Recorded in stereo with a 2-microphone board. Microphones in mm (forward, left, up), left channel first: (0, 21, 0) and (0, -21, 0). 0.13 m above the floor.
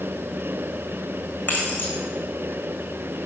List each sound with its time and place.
1.5 s keys jangling: 45° left (ahead or behind), 5 m